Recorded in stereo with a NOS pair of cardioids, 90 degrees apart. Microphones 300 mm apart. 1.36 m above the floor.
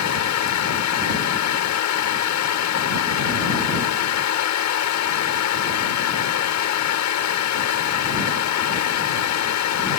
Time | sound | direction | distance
0.0 | a fan | 70° left | ?